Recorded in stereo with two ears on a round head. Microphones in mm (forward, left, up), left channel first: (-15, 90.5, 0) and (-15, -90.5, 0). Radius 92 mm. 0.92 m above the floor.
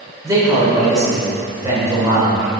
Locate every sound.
0.2 s a man speaking: 20° right (ahead or behind), 3 m